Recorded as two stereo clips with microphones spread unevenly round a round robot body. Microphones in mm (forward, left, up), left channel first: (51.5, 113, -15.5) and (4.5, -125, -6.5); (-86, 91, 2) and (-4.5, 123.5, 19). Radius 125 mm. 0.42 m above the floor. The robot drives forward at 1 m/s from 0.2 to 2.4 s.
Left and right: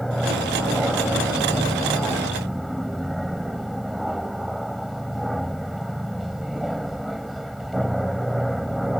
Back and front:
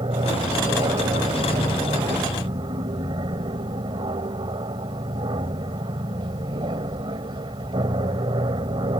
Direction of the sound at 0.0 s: 10° right.